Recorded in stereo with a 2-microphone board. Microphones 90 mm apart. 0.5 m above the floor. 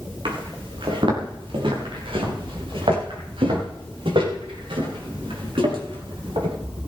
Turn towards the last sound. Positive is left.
turn(degrees=-85)